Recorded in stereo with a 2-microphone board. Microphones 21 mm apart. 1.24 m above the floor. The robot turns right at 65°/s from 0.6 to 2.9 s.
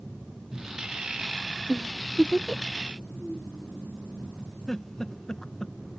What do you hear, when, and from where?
1.7 s a giggle: 20° right (ahead or behind); by 2.6 s 35° left (ahead or behind)
4.7 s a giggle: 30° left (ahead or behind)